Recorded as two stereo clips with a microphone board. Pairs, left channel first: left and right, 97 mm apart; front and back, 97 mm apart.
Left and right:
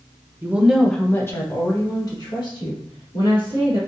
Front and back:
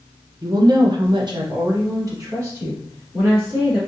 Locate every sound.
0.4 s a woman speaking: 145° right, 0.6 m; by 3.8 s 120° left, 2.5 m